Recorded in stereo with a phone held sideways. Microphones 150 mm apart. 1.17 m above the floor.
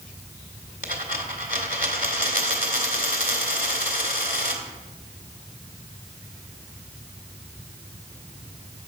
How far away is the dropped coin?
About 2 m.